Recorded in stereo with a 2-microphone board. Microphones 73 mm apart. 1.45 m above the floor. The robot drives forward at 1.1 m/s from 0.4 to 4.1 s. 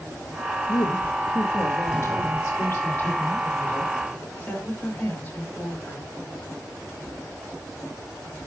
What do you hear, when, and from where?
0.7 s a woman speaking: 65° left (ahead or behind), 1.5 m; by 6.1 s 15° left (ahead or behind), 4.5 m